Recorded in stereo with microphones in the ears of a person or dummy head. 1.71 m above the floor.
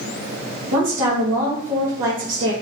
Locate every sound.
0.7 s a woman speaking: 65° right (ahead or behind), 1.1 m